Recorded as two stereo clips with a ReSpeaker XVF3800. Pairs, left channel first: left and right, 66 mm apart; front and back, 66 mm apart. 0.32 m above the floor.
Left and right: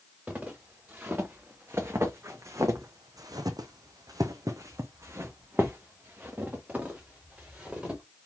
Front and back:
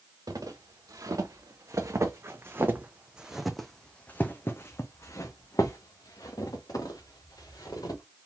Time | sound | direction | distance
0.3 | footsteps | 155° right | 1.9 m